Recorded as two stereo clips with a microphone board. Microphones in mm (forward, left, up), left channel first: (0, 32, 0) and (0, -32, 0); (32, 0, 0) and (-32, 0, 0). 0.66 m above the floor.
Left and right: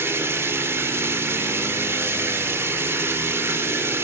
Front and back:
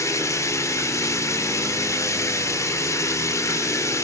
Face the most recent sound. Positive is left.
turn(degrees=-40)